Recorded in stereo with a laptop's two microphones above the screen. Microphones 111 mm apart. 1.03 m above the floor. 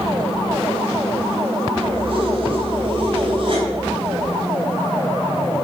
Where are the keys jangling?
55° right (ahead or behind), 3.5 m.